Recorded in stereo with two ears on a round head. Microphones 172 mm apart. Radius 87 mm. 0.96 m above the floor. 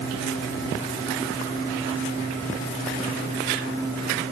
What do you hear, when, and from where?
Only background noise.